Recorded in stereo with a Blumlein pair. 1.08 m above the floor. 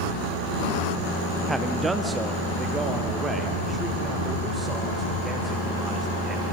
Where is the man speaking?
5° right, 1.3 m; by 6.4 s 10° right, 5 m.